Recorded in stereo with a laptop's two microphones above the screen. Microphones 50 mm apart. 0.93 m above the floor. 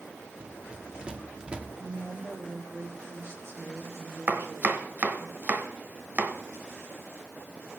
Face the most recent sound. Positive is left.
turn(degrees=-40)  # may be behind; listen again after turning